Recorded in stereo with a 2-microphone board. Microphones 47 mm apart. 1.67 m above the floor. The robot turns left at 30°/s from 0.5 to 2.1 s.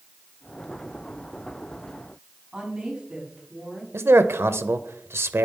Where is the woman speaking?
20° right (ahead or behind), 5 m.